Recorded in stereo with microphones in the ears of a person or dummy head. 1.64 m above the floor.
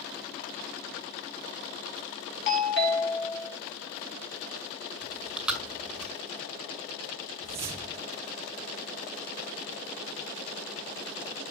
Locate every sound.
2.5 s a doorbell: 65° left (ahead or behind), 2 m
5.0 s chewing: 5° right (ahead or behind), 2 m
7.4 s a whoosh: 10° right (ahead or behind), 0.6 m